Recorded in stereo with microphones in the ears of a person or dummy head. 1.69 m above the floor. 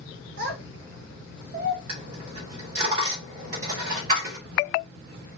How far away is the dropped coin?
About 2.0 m.